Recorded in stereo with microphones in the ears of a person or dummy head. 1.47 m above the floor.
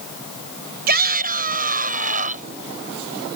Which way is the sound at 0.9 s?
55° right (ahead or behind).